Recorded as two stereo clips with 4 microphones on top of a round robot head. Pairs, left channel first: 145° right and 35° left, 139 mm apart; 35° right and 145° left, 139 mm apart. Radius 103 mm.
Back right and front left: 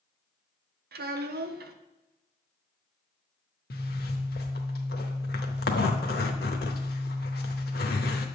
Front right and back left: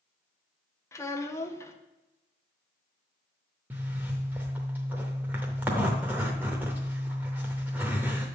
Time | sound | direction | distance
0.9 | a child speaking | 40° left | 0.9 m
3.7 | a zipper | 140° right | 0.6 m